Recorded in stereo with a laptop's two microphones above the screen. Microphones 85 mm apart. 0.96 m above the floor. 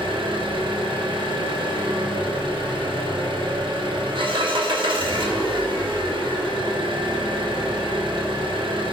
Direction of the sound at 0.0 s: 75° right (ahead or behind).